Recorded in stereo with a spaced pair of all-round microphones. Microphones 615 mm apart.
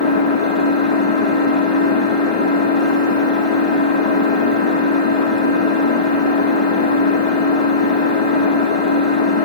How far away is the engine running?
About 0.8 m.